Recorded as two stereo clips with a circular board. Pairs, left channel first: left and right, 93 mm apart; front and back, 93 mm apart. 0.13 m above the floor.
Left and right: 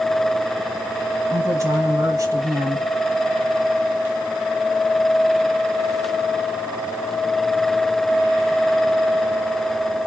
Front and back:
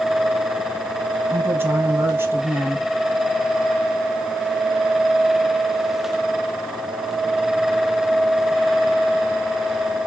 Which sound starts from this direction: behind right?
A woman speaking, at 1.3 s.